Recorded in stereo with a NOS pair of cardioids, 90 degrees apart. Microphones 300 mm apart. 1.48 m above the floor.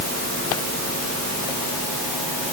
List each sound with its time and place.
Only background noise.